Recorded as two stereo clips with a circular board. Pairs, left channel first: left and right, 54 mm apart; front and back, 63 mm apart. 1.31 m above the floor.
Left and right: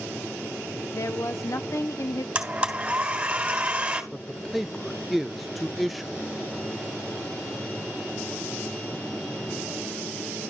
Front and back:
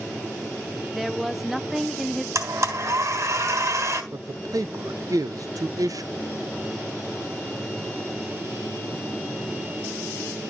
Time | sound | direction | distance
0.9 | a woman speaking | 90° left | 0.6 m
2.4 | a blender | 155° right | 3 m
4.1 | a man speaking | straight behind | 0.5 m